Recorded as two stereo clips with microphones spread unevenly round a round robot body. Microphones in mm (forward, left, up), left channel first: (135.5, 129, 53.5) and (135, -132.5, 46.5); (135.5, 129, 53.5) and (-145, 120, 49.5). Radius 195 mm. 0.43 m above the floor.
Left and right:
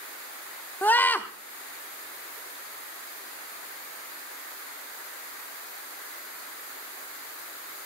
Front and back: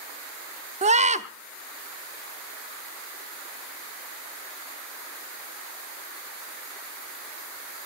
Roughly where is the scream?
Behind.